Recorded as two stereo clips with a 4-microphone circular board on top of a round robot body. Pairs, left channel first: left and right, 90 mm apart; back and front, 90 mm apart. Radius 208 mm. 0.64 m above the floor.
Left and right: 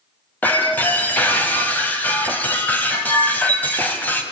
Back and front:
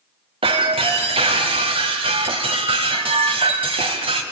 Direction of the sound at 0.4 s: 15° left.